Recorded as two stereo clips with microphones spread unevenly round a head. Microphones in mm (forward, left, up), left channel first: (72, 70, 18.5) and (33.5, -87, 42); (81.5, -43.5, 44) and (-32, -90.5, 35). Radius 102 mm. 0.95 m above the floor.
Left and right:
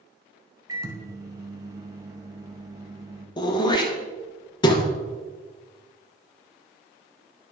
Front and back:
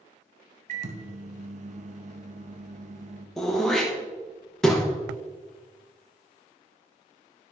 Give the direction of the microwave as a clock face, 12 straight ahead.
6 o'clock.